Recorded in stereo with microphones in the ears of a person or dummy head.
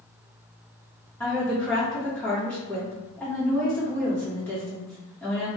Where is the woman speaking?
15° left (ahead or behind), 0.9 m.